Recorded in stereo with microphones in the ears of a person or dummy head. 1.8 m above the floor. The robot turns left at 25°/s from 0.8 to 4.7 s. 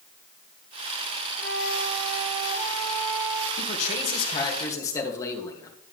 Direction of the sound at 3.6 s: 55° left (ahead or behind).